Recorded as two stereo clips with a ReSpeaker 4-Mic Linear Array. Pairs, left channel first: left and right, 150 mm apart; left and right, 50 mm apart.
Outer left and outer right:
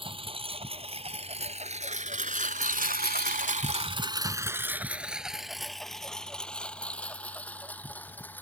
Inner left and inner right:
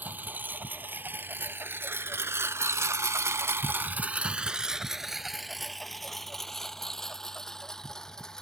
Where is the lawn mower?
35° right (ahead or behind); by 8.4 s 10° left (ahead or behind).